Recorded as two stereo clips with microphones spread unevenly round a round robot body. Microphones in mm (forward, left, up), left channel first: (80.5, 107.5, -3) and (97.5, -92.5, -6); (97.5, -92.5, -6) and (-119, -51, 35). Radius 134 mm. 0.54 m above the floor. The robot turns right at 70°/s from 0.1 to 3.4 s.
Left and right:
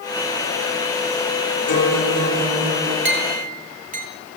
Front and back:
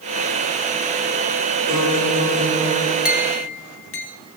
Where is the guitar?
70° left, 5.5 m; by 3.0 s 160° left, 5.5 m.